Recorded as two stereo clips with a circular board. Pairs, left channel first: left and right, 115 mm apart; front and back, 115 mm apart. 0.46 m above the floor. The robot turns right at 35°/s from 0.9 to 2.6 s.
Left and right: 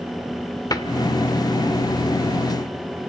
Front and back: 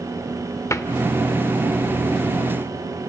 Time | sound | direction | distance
0.7 | a cupboard door | 50° left | 0.9 m